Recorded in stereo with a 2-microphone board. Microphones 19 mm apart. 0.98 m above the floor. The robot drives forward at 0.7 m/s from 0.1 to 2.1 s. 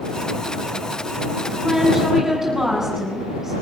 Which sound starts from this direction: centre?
A woman speaking, at 1.6 s.